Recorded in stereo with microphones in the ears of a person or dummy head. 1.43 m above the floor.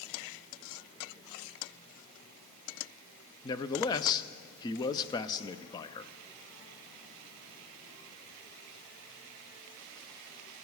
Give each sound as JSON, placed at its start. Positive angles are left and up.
{"t": 3.4, "sound": "a man speaking", "side_deg": 20, "distance_m": 0.6}